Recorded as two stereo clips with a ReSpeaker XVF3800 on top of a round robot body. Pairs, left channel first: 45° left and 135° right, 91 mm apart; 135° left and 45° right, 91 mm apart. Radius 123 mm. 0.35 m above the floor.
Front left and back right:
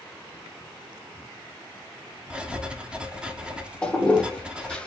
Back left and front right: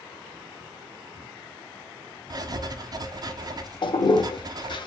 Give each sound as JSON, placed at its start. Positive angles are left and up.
{"t": 2.3, "sound": "writing", "azimuth_deg": -60, "distance_m": 0.8}
{"t": 3.8, "sound": "a toilet flushing", "azimuth_deg": 125, "distance_m": 0.7}